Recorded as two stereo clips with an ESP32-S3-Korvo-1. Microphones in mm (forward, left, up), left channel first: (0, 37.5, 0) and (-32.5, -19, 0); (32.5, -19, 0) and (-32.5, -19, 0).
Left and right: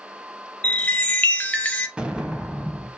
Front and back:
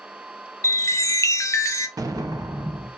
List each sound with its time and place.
0.6 s a chime: straight ahead, 0.7 m
2.0 s an explosion: 165° left, 0.7 m